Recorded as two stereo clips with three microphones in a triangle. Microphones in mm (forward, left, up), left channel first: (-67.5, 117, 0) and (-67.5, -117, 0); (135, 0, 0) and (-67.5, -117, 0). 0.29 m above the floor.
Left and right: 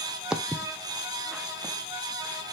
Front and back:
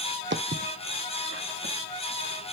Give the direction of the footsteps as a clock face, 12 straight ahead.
6 o'clock.